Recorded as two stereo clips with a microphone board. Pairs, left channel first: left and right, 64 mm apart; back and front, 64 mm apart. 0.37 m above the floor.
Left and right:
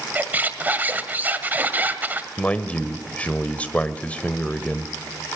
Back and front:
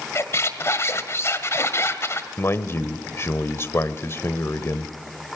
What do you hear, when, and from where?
0.1 s a squeak: 145° right, 1.5 m
2.4 s a man speaking: 155° left, 1.2 m